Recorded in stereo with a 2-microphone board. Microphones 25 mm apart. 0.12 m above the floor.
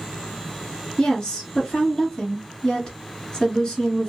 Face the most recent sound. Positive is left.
turn(degrees=30)  # may be behind; listen again after turning